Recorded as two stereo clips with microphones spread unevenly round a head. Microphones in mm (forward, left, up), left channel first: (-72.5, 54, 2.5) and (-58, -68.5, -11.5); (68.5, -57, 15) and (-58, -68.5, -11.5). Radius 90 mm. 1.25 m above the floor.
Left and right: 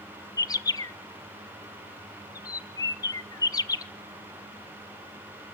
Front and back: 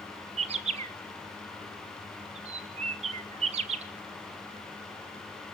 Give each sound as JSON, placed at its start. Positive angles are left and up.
{"t": 0.4, "sound": "a bird", "azimuth_deg": 160, "distance_m": 1.0}